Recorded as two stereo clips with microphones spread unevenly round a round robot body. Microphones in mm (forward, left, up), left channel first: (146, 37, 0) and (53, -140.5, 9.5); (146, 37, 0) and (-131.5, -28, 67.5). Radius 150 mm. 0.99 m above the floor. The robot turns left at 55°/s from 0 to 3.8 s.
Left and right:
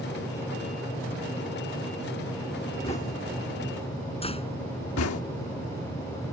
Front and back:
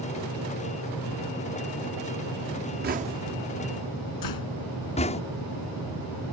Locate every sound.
2.8 s knocking: 140° left; by 5.2 s 85° left
4.2 s a door slam: straight ahead